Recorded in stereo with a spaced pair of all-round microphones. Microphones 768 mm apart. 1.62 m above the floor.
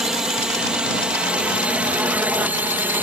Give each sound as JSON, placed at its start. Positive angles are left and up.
{"t": 0.0, "sound": "a drone", "side_deg": 0}